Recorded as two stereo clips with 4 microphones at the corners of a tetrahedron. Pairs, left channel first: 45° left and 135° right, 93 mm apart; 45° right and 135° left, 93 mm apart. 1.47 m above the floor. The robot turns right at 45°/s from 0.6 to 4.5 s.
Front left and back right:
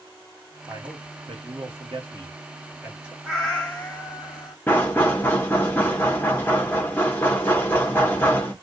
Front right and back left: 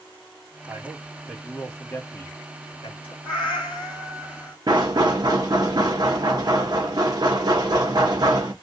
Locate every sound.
0.7 s a man speaking: 165° right, 1.6 m; by 3.1 s 50° right, 1.6 m
3.2 s a cat meowing: 50° right, 1.7 m; by 4.6 s 10° left, 1.7 m
4.7 s knocking: 105° left, 0.9 m